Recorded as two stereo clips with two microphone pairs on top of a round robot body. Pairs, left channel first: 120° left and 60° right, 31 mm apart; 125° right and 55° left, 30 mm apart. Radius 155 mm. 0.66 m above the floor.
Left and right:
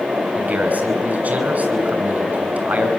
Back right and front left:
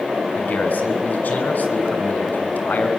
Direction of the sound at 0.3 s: 100° right.